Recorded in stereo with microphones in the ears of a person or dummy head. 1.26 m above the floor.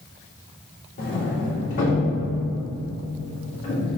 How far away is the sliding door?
About 2.5 m.